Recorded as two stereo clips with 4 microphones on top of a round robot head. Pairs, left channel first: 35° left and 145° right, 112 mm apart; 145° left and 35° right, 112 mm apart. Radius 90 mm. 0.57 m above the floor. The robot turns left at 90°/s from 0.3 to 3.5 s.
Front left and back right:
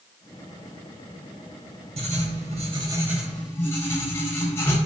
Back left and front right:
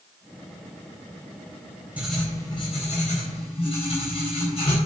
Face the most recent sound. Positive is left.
turn(degrees=105)